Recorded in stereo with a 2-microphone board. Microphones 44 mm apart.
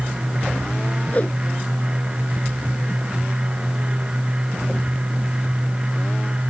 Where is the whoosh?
30° left (ahead or behind).